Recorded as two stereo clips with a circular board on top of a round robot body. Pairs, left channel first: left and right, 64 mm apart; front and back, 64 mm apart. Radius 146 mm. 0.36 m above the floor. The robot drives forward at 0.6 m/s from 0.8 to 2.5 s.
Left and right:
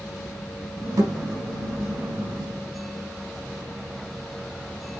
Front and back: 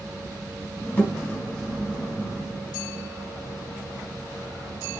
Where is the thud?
70° right, 4 m.